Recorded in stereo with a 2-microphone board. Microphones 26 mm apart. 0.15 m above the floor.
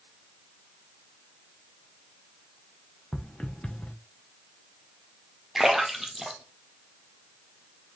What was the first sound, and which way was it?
Footsteps, 50° left (ahead or behind).